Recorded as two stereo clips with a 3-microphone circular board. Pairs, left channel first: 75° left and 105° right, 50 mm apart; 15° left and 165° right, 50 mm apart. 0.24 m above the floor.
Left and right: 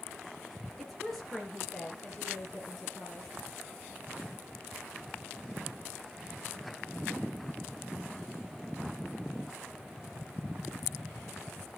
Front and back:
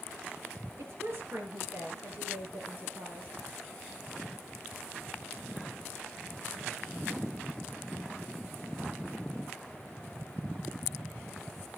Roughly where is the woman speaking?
Behind.